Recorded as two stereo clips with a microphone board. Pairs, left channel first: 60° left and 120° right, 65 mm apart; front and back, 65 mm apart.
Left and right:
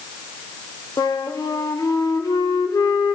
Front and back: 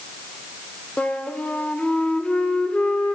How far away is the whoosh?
I don't hear a whoosh.